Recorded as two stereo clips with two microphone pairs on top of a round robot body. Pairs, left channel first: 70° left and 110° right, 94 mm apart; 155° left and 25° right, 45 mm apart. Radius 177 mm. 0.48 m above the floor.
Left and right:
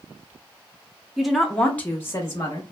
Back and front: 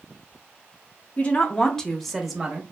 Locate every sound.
1.2 s a woman speaking: 165° left, 0.9 m; by 2.6 s 45° left, 1.0 m